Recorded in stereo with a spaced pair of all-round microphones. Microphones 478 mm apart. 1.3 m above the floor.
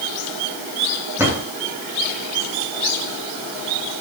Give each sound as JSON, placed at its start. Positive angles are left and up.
{"t": 1.2, "sound": "a drawer", "side_deg": -5, "distance_m": 9.0}